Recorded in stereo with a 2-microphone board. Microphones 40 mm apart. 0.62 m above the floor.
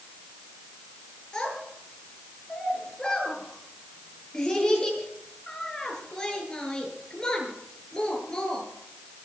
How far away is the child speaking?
About 8 m.